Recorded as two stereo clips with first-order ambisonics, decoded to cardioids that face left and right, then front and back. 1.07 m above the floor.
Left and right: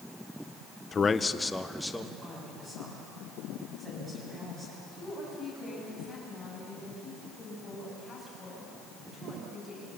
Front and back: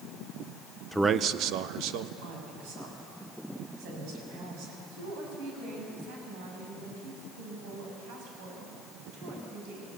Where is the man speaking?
85° left, 0.5 m; by 2.1 s straight behind, 1.4 m.